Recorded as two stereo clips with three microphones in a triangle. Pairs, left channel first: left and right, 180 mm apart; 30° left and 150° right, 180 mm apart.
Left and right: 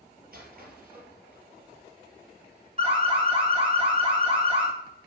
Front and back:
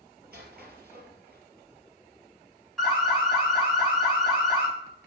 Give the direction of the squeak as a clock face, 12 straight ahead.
4 o'clock.